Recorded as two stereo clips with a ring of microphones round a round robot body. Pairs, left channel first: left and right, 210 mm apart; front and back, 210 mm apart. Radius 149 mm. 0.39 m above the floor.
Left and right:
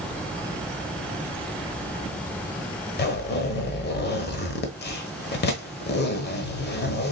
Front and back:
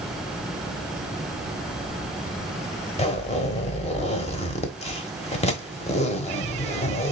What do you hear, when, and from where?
3.0 s a zipper: 55° left, 1.2 m